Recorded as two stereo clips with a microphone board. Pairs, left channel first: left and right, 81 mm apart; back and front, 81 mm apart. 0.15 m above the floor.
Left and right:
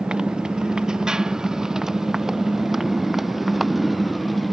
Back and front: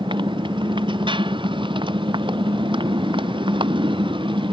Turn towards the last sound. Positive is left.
turn(degrees=0)